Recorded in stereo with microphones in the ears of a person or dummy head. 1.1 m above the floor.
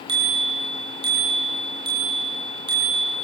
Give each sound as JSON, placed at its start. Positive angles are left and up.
{"t": 0.1, "sound": "a bicycle bell", "side_deg": -30, "distance_m": 7.0}